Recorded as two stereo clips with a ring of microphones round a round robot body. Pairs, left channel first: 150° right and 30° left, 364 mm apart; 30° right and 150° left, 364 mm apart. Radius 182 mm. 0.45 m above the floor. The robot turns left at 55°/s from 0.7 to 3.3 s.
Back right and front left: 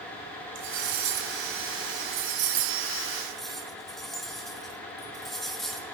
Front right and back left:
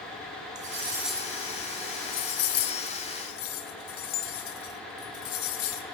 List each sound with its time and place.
0.6 s cutlery clinking: 80° left, 0.9 m; by 5.8 s 60° right, 0.9 m